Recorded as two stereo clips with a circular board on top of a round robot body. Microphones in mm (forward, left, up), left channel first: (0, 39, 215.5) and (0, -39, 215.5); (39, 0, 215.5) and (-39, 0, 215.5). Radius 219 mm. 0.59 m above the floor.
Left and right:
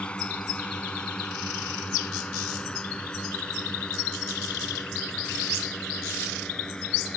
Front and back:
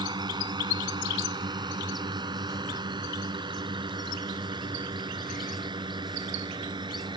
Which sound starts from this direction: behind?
A drone, at 0.0 s.